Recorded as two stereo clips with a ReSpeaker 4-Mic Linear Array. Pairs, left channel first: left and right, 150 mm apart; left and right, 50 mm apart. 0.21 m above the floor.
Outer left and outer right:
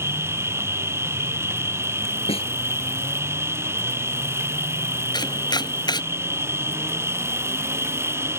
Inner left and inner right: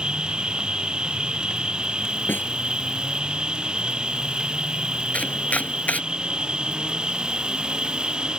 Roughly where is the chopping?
Left.